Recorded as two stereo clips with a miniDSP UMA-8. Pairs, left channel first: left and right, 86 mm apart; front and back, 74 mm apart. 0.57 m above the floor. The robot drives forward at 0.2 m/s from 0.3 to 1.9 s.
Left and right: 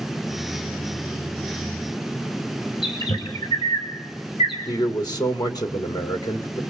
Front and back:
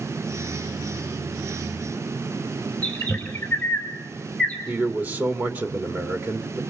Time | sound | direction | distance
2.8 | a bird | 70° left | 3 m
4.7 | a man speaking | 120° left | 1.6 m